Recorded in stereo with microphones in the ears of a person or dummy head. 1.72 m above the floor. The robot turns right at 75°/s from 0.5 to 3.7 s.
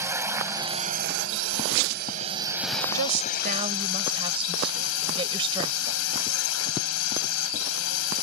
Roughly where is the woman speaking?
Right.